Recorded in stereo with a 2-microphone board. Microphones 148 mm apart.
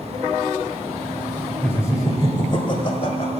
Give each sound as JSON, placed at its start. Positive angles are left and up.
{"t": 1.6, "sound": "laughter", "side_deg": 15, "distance_m": 1.2}